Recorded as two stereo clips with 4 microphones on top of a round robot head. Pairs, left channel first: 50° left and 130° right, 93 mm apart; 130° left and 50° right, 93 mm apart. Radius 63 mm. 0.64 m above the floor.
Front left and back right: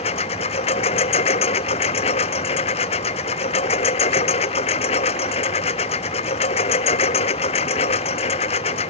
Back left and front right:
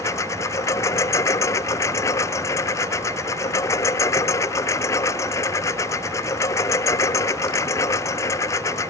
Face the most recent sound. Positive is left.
turn(degrees=70)